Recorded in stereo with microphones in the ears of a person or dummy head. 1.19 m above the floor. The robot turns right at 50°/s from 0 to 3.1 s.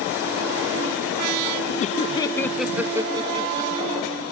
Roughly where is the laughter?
Left.